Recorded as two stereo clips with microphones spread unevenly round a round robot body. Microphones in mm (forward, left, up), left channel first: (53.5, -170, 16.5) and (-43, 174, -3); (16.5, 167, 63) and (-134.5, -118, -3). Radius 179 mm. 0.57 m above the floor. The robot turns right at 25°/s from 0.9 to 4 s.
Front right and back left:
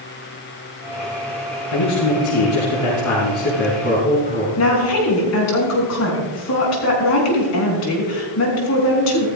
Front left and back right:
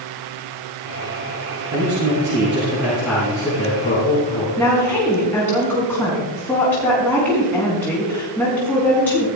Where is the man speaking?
65° right, 5.5 m; by 4.6 s 5° right, 5.5 m.